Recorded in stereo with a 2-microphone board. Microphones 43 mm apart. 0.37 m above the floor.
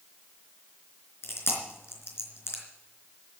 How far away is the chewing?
About 4 m.